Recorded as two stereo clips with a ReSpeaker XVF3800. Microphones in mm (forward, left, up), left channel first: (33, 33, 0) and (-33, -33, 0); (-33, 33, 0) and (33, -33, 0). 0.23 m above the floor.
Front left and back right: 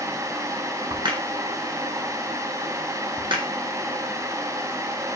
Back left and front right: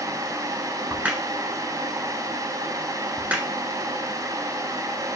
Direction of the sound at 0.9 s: 115° right.